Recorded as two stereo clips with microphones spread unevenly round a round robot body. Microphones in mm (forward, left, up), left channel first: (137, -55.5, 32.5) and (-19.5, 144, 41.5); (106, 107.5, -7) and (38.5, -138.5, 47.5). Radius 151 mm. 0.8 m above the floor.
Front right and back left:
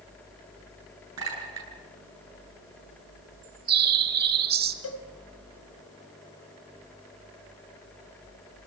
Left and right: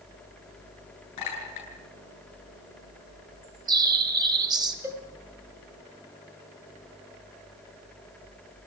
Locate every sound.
1.2 s a clink: 105° left, 8.5 m
3.4 s a bird: 175° right, 1.1 m
4.8 s a cowbell: 25° right, 5.5 m